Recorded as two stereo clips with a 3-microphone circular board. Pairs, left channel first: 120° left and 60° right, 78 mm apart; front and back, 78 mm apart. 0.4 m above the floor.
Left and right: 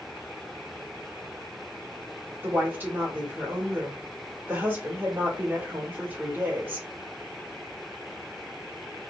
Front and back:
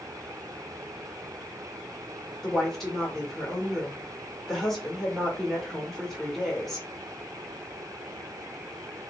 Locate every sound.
2.4 s a woman speaking: 85° right, 1.1 m